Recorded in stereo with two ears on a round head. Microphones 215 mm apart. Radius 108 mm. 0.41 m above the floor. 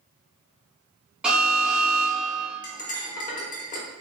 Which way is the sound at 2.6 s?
35° left (ahead or behind).